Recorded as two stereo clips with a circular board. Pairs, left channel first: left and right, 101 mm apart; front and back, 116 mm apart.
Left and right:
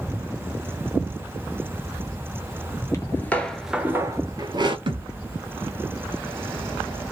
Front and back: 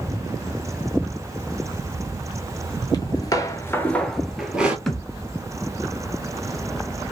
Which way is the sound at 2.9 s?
40° left.